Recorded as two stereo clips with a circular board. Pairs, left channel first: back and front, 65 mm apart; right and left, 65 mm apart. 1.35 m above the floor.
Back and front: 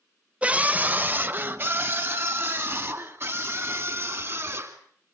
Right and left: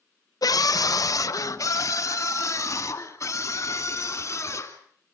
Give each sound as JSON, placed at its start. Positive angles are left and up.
{"t": 0.4, "sound": "a scream", "azimuth_deg": -70, "distance_m": 0.9}